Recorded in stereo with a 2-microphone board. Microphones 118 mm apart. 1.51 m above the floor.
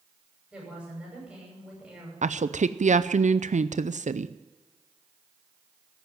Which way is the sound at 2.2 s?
75° right (ahead or behind).